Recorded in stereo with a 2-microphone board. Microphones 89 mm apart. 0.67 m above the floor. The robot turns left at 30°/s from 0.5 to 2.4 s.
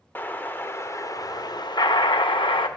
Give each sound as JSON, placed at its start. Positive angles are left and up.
{"t": 0.1, "sound": "an explosion", "azimuth_deg": 155, "distance_m": 0.5}